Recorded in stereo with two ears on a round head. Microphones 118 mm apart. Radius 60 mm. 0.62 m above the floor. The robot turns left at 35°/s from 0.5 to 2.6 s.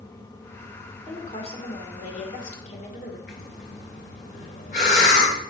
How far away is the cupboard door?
No cupboard door in this recording.